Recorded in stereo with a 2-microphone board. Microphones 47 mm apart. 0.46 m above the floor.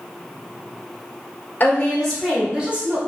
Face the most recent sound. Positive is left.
turn(degrees=-35)  # may be behind; listen again after turning